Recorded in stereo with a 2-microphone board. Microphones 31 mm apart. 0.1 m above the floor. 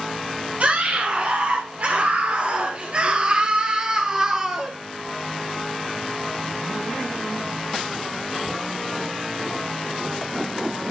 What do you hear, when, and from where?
0.6 s a scream: 50° right (ahead or behind), 2 m; by 4.7 s 15° right (ahead or behind), 2 m